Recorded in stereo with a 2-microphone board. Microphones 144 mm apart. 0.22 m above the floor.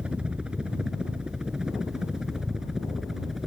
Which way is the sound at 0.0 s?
5° right (ahead or behind).